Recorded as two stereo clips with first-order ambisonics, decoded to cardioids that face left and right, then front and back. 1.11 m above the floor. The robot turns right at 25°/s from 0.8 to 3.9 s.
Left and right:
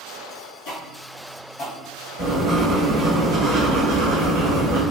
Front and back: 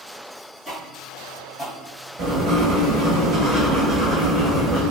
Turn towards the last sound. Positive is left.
turn(degrees=-115)